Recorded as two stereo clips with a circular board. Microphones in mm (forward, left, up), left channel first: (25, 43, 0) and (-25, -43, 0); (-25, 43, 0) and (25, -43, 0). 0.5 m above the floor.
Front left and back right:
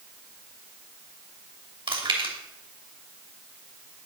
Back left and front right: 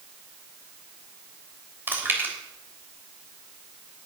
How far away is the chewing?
About 3 m.